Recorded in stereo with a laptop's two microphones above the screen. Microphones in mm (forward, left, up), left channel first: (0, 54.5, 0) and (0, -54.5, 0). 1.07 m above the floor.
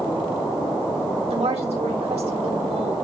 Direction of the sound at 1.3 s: 80° right.